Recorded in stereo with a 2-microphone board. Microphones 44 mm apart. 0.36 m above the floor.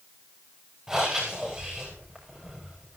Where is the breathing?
15° right (ahead or behind), 8 m.